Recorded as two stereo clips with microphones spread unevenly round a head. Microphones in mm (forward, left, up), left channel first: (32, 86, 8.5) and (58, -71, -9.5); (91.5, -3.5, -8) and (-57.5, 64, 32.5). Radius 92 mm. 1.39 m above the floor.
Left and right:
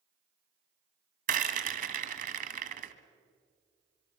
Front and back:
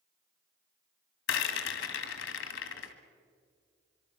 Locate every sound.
1.3 s a rattle: 40° right, 1.9 m